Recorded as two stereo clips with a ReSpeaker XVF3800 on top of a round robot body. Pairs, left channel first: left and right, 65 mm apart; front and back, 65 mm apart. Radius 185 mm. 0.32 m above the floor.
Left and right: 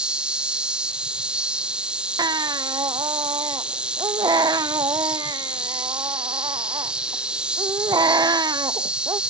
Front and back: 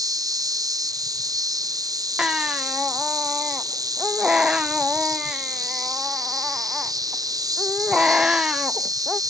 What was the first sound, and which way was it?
An insect, 165° right.